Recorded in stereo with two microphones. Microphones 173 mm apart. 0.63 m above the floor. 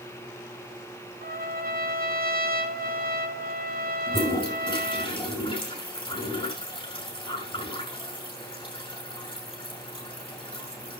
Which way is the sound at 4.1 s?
30° left (ahead or behind).